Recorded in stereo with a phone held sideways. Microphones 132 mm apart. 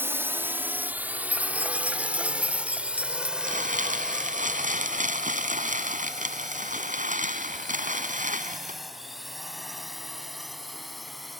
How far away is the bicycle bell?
I don't hear a bicycle bell.